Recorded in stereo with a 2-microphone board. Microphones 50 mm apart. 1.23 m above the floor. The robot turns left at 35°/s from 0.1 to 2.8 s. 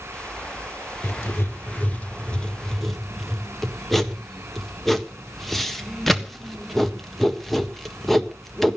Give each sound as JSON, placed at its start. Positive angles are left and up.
{"t": 1.0, "sound": "writing", "side_deg": 60, "distance_m": 1.5}